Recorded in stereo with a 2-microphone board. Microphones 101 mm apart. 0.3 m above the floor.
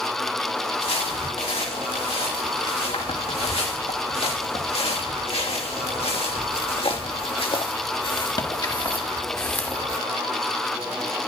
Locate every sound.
0.8 s footsteps: 85° left, 5 m; by 10.0 s 10° left (ahead or behind), 1.3 m